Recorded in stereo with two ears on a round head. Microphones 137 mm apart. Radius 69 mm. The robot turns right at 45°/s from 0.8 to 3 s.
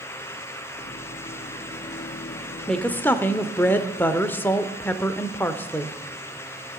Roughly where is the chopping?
I don't hear chopping.